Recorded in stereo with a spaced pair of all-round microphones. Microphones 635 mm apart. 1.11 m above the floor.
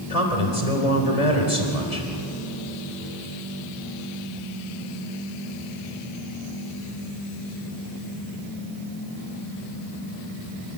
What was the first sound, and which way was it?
A man speaking, 80° left.